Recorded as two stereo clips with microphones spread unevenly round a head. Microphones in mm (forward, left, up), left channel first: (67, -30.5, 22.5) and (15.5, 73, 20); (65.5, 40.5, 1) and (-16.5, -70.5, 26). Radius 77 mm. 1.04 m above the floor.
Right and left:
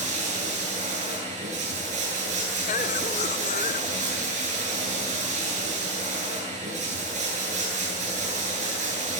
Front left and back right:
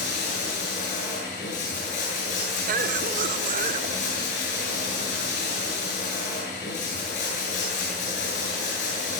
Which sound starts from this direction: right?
A cough, at 2.7 s.